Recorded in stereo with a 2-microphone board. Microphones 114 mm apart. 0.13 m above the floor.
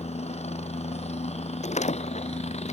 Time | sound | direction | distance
0.0 | a helicopter | 70° left (ahead or behind) | ?
1.6 | a door slam | 85° left | ?